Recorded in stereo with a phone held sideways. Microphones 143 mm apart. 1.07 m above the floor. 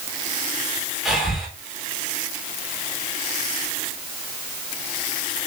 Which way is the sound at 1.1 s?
Centre (ahead or behind).